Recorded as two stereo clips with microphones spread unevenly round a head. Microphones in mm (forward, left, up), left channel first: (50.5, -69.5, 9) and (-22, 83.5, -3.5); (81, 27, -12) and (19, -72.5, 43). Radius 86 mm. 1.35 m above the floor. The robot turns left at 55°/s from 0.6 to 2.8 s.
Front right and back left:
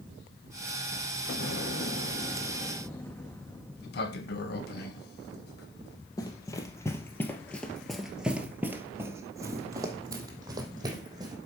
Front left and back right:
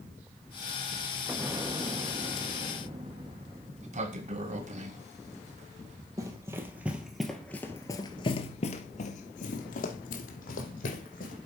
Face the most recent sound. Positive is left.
turn(degrees=50)